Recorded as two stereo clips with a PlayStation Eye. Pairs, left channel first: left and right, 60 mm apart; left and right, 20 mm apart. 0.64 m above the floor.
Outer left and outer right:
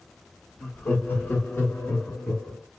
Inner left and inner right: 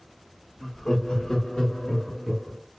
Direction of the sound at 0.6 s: 25° left (ahead or behind).